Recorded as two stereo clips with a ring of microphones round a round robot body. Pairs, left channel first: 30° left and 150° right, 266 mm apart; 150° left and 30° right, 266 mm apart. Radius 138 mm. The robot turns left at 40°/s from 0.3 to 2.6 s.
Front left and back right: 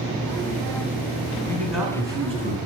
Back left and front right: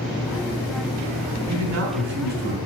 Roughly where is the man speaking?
Ahead right.